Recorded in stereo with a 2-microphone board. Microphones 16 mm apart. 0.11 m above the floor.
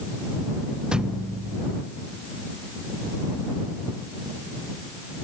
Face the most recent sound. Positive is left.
turn(degrees=-55)  # may be behind; listen again after turning